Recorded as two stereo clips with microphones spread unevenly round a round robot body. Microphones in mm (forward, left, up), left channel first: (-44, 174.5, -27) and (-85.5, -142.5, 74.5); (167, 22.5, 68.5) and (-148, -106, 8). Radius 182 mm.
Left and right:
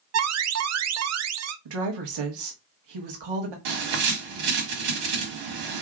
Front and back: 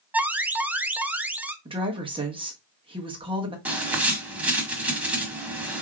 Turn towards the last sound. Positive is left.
turn(degrees=-75)